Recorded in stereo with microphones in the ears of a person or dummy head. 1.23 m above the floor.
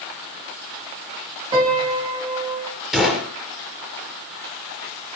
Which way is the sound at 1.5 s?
30° right (ahead or behind).